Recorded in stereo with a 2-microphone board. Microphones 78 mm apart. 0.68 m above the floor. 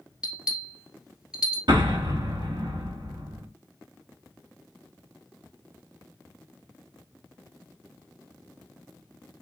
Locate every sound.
0.2 s a bell: 10° right (ahead or behind), 1.8 m
1.7 s an explosion: 60° right (ahead or behind), 1.0 m